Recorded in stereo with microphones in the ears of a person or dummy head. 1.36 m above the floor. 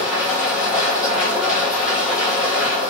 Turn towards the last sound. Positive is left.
turn(degrees=0)  # may be behind; listen again after turning